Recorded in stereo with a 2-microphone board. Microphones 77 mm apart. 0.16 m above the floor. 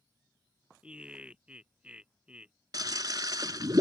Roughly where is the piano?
No piano in this recording.